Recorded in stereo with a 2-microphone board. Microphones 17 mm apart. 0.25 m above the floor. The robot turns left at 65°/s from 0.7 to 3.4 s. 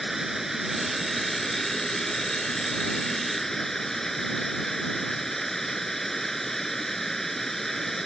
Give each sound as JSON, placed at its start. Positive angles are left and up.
{"t": 0.0, "sound": "running water", "azimuth_deg": -160}